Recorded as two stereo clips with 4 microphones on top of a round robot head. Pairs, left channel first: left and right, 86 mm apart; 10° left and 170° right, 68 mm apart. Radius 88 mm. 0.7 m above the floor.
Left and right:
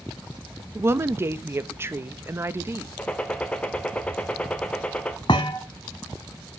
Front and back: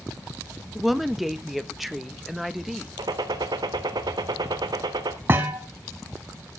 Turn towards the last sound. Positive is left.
turn(degrees=135)